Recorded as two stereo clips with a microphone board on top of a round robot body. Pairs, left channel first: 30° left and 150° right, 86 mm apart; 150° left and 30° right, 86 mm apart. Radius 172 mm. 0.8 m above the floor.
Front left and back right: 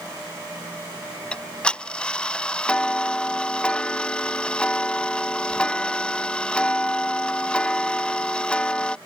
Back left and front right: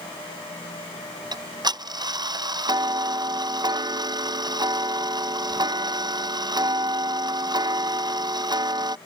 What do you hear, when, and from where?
1.3 s ticking: 45° right